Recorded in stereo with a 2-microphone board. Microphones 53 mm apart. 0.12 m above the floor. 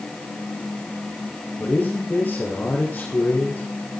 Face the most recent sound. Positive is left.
turn(degrees=30)  # may be behind; listen again after turning